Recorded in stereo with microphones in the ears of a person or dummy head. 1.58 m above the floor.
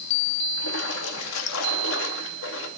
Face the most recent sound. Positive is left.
turn(degrees=70)  # may be behind; listen again after turning